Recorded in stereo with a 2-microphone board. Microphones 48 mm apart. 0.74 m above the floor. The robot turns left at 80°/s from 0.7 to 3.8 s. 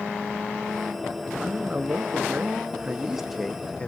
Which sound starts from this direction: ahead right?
A man speaking, at 1.4 s.